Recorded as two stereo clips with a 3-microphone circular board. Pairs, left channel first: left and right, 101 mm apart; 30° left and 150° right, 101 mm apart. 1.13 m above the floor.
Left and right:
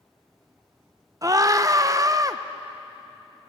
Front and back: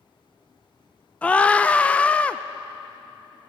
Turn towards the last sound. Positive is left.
turn(degrees=-45)